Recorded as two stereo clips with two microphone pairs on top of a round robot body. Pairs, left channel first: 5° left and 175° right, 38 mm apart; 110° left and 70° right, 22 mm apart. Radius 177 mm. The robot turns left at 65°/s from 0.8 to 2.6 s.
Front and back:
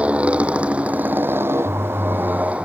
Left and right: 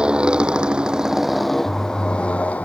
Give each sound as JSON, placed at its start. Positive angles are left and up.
{"t": 0.0, "sound": "a motorcycle", "azimuth_deg": -115}